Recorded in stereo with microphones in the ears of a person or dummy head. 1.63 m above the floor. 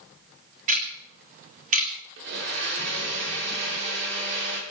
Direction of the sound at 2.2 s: 60° right (ahead or behind).